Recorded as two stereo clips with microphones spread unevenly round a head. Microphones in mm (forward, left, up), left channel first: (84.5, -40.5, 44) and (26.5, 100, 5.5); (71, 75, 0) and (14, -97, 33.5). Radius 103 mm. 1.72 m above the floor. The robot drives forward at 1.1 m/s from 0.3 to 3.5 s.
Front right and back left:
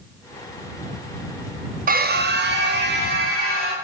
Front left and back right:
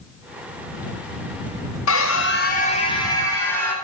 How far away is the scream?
About 0.9 m.